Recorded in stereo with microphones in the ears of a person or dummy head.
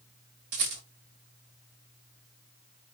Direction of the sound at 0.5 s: 50° right (ahead or behind).